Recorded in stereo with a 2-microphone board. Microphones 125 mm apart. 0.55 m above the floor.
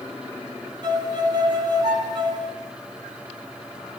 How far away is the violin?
About 5 m.